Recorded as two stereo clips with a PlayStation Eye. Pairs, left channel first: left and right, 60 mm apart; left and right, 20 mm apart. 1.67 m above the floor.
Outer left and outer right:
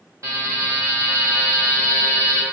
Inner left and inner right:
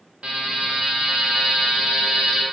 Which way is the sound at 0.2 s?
65° right (ahead or behind).